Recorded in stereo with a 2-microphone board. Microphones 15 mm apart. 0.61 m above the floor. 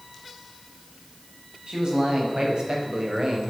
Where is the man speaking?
80° right, 5.5 m; by 3.5 s 65° right (ahead or behind), 3.5 m.